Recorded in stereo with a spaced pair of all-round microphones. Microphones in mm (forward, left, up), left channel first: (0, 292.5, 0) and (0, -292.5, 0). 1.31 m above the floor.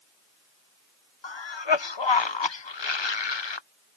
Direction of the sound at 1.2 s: 50° left (ahead or behind).